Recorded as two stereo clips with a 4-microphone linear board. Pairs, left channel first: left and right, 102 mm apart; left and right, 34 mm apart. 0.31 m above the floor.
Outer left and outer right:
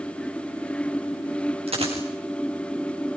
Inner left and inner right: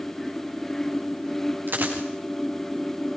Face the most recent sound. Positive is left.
turn(degrees=-75)  # may be behind; listen again after turning